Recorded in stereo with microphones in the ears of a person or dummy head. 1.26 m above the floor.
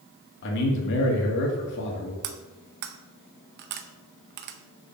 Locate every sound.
0.4 s a man speaking: 60° left (ahead or behind), 2 m
2.2 s cutlery clinking: 55° right (ahead or behind), 0.7 m